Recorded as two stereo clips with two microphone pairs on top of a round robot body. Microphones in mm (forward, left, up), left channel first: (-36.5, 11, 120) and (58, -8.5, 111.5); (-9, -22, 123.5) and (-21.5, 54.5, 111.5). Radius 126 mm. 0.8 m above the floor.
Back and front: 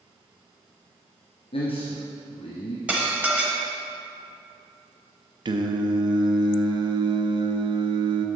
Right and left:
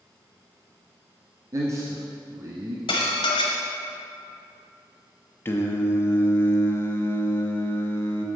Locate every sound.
1.5 s a man speaking: 145° left, 1.2 m
2.9 s dishes clattering: 90° right, 1.0 m
5.5 s singing: 20° right, 0.8 m